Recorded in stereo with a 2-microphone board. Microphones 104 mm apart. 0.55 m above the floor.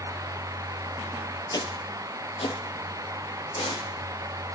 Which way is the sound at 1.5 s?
45° left (ahead or behind).